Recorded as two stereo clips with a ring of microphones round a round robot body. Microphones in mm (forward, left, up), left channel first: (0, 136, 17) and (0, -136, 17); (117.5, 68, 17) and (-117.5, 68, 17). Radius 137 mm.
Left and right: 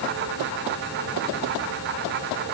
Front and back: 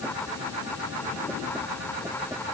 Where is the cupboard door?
No cupboard door in this recording.